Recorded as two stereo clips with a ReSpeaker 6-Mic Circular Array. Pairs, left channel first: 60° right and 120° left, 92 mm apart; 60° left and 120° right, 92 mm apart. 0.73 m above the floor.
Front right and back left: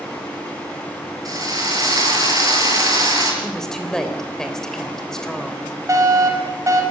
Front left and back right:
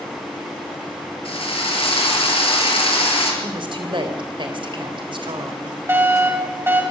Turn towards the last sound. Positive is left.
turn(degrees=175)